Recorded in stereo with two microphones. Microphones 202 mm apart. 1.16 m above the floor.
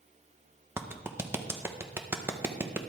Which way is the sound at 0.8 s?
10° right (ahead or behind).